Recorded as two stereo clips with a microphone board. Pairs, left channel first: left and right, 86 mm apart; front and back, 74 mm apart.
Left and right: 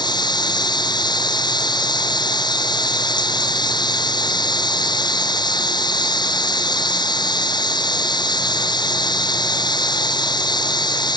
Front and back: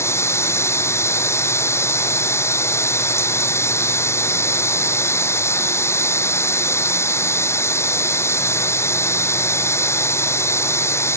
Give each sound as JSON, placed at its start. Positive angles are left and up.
{"t": 0.0, "sound": "running water", "azimuth_deg": 55}